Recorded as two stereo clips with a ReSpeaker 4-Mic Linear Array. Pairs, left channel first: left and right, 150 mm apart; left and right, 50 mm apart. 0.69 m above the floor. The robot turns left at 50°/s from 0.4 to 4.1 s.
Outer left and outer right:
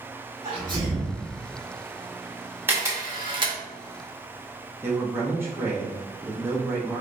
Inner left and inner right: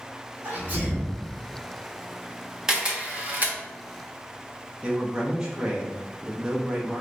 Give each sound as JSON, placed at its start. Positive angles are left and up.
{"t": 0.4, "sound": "a sneeze", "azimuth_deg": -120, "distance_m": 1.6}
{"t": 2.7, "sound": "a camera shutter", "side_deg": -15, "distance_m": 1.0}
{"t": 4.8, "sound": "a man speaking", "side_deg": -15, "distance_m": 0.7}